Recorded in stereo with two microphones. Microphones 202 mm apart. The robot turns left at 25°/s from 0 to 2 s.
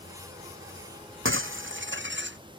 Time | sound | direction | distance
1.2 | breaking glass | 80° right | ?